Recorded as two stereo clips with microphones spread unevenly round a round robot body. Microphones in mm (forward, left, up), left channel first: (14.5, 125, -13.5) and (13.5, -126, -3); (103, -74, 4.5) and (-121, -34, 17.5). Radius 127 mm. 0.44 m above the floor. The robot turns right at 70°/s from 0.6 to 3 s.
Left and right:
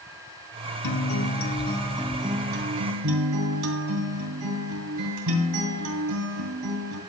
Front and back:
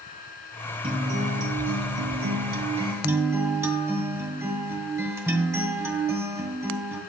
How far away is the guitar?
About 2.5 m.